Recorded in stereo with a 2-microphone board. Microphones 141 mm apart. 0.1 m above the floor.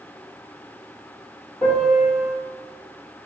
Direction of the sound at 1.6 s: 5° left (ahead or behind).